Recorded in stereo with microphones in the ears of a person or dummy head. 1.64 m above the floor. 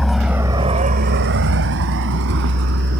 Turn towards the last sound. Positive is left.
turn(degrees=-60)  # may be behind; listen again after turning